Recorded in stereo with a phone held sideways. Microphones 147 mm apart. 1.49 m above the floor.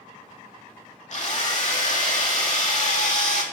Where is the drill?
50° left (ahead or behind), 2.5 m.